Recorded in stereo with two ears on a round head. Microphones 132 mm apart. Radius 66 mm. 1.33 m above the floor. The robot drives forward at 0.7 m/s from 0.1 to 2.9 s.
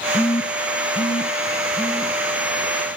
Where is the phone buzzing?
30° left (ahead or behind), 0.6 m; by 2.1 s 15° left (ahead or behind), 1.3 m.